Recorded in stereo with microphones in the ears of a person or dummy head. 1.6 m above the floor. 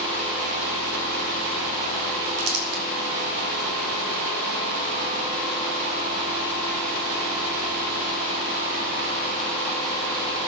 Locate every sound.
2.4 s crumpling: 75° right (ahead or behind), 4 m